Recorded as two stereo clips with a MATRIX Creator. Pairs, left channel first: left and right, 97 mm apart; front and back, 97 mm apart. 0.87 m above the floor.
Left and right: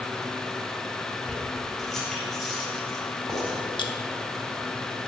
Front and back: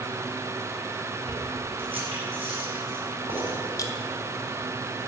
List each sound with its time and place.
1.3 s keys jangling: 175° left, 4 m
3.8 s a clink: 55° left, 1.1 m